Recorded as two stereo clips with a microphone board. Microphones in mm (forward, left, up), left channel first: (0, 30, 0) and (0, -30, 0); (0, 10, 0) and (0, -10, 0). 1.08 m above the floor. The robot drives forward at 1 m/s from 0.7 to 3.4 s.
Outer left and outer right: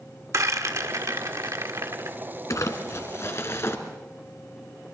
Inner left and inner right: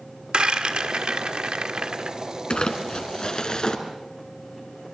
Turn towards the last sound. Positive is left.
turn(degrees=50)  # may be behind; listen again after turning